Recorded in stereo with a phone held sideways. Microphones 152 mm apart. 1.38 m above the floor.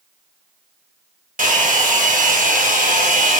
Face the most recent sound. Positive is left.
turn(degrees=-65)  # may be behind; listen again after turning